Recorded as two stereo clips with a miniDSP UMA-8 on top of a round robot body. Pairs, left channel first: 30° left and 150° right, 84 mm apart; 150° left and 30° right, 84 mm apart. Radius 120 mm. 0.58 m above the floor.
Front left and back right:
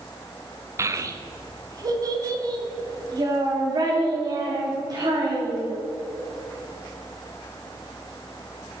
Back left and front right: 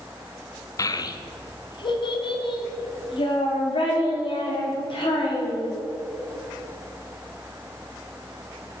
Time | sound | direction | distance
0.8 | a child speaking | 170° left | 0.7 m